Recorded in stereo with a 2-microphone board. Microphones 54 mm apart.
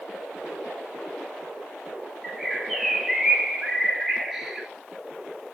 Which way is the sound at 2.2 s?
Centre (ahead or behind).